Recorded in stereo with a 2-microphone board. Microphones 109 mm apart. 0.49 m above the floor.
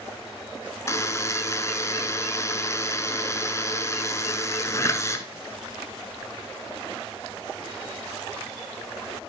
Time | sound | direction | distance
0.9 | a buzzer | 25° left (ahead or behind) | 1.0 m